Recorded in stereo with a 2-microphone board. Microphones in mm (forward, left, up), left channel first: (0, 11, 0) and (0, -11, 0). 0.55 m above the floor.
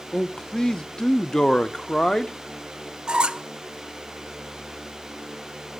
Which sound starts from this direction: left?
A man speaking, at 0.1 s.